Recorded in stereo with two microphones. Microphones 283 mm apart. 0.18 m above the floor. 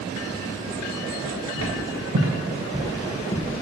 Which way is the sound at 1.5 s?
65° right (ahead or behind).